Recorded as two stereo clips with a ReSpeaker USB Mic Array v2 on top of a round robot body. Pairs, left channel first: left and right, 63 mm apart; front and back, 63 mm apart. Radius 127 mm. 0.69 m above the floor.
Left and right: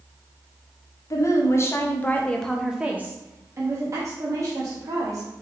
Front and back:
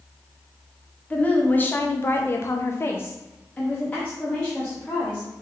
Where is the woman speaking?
65° left, 0.9 m; by 5.3 s 75° right, 1.5 m.